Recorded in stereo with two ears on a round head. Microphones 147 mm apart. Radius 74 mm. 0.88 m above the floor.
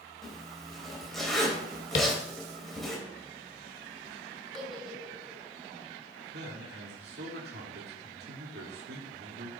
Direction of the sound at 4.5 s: Centre (ahead or behind).